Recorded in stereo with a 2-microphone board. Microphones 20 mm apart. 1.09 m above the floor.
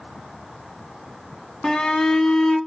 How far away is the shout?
About 0.8 m.